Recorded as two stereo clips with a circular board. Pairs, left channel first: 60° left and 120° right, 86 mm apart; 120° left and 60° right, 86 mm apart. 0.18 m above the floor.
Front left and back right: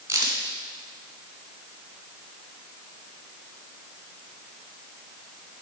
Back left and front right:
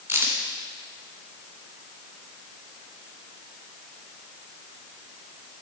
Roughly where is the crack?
Right.